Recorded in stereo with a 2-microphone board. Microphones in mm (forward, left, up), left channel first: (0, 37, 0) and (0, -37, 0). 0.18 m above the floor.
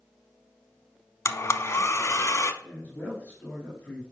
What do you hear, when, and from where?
1.2 s a blender: 40° left (ahead or behind), 0.6 m
2.6 s a man speaking: 20° left (ahead or behind), 2.5 m